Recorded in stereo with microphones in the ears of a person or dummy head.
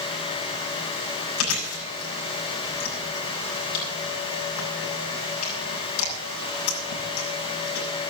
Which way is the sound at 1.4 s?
80° left.